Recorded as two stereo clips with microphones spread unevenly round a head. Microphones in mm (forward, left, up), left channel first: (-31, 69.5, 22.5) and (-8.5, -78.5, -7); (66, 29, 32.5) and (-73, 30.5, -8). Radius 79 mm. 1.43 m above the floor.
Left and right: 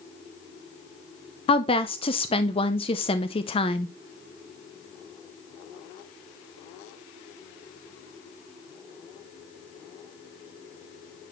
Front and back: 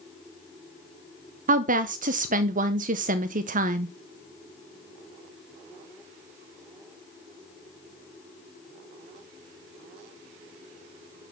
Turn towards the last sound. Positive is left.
turn(degrees=145)